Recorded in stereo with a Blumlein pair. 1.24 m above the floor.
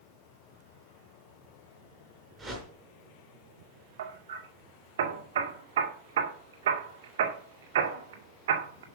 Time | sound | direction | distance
2.4 | a whoosh | 10° right | 5 m
4.0 | hammering | 60° right | 2.0 m